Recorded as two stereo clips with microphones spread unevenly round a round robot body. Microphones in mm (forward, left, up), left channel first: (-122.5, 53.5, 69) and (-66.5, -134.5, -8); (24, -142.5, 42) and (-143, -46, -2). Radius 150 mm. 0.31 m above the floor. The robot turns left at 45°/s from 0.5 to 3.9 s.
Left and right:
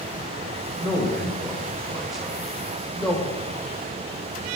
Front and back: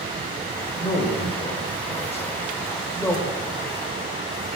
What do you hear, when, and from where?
0.8 s a man speaking: 15° right, 1.3 m; by 3.2 s 125° right, 1.3 m